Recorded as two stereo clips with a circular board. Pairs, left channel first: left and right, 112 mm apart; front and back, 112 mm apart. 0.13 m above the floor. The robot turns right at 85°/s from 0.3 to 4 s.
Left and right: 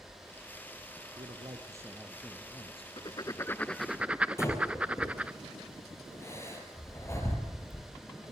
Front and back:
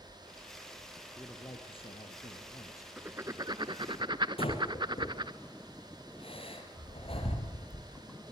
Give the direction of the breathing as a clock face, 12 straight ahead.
11 o'clock.